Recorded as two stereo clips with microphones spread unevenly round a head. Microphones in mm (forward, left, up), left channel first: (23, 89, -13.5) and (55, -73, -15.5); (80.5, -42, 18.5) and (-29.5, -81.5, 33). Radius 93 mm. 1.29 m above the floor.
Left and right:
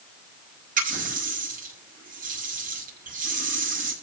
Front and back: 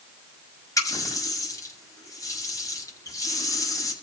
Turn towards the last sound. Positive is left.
turn(degrees=-45)